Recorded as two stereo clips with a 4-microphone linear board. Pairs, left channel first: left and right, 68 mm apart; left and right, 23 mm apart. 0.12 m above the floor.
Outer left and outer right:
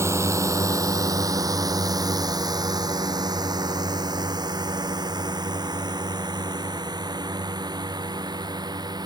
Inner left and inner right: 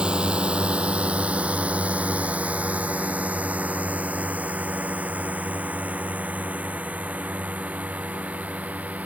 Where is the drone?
40° right (ahead or behind); by 9.1 s 80° right.